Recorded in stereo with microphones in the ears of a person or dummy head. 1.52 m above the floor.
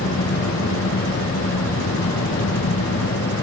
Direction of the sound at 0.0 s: 75° left (ahead or behind).